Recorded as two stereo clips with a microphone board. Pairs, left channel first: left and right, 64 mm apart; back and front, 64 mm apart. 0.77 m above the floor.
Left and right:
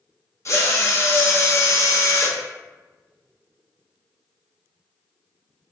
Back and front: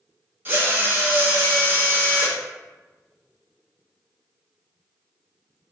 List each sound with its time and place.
0.5 s a drill: 50° left, 0.6 m